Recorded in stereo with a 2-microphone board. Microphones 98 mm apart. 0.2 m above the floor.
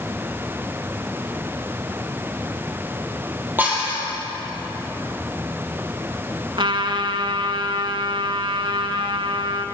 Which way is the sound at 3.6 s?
20° right (ahead or behind).